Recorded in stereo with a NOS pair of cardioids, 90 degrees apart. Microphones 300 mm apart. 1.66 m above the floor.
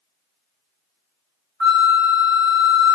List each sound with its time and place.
1.6 s a flute: 40° right, 0.9 m